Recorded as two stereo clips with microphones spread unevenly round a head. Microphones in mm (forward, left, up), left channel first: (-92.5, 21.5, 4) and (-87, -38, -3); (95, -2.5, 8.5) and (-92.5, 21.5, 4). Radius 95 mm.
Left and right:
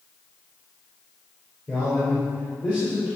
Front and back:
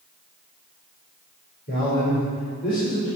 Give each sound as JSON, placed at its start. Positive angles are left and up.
{"t": 1.7, "sound": "a man speaking", "azimuth_deg": 35, "distance_m": 5.0}